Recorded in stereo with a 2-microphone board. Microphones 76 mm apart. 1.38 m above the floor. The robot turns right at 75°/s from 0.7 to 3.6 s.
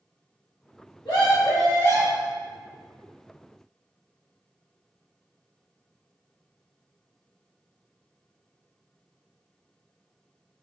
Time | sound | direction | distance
1.1 | a scream | 90° left | 2.0 m